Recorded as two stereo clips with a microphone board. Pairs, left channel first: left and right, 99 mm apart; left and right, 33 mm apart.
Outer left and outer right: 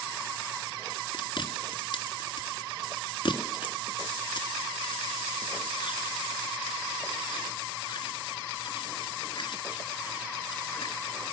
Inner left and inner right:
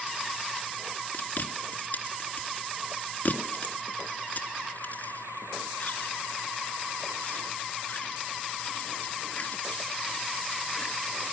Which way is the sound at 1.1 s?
55° left (ahead or behind).